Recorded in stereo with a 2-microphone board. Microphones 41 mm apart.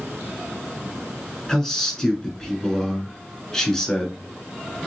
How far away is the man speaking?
About 1.4 m.